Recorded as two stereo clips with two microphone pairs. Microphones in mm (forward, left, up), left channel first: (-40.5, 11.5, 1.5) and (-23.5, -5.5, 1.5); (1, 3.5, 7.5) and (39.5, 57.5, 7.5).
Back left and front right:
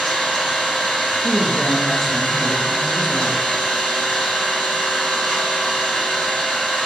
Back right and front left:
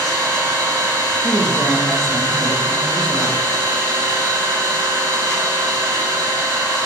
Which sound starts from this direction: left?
An engine running, at 0.0 s.